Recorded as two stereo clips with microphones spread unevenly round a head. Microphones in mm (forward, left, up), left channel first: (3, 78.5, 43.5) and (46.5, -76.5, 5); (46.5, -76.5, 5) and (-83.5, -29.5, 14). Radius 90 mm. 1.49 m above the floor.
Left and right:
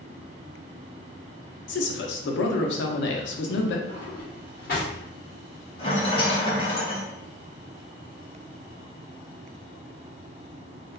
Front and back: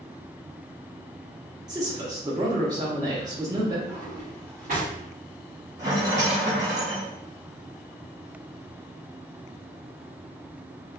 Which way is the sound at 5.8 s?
105° left.